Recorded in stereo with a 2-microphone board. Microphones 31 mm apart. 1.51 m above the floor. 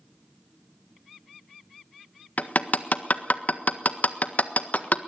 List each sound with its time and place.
2.4 s hammering: 55° left (ahead or behind), 1.4 m